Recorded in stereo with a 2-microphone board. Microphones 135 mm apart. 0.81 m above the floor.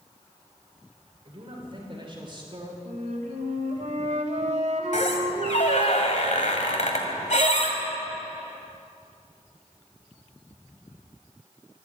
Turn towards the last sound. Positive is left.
turn(degrees=60)  # may be behind; listen again after turning